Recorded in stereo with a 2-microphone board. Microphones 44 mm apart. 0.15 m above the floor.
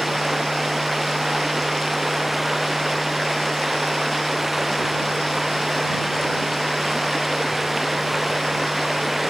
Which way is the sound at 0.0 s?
5° right (ahead or behind).